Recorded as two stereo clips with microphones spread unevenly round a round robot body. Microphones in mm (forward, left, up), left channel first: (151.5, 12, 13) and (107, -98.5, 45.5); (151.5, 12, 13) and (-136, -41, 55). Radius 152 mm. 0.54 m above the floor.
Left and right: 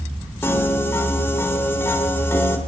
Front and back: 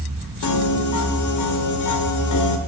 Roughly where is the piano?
Ahead.